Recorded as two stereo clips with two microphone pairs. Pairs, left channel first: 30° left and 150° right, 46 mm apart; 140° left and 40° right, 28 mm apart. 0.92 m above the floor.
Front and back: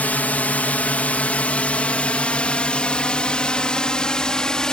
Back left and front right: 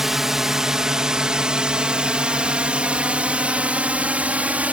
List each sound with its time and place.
0.0 s a drone: 30° left; by 4.7 s 40° right